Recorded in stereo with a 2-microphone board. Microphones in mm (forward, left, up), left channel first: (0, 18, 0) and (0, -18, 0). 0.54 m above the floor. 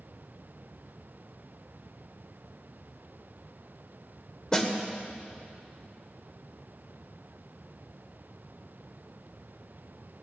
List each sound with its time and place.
4.5 s a snare drum: 20° left (ahead or behind), 1.3 m